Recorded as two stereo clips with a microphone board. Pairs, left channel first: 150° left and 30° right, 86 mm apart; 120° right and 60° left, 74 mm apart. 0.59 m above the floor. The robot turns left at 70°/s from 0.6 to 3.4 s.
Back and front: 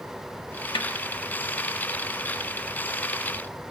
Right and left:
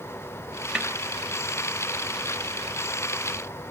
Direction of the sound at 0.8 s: 135° left.